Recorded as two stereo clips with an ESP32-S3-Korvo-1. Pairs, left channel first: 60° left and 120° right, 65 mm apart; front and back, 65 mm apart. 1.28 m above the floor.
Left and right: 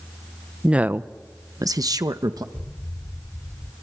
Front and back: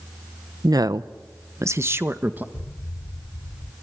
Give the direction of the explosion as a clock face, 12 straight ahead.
11 o'clock.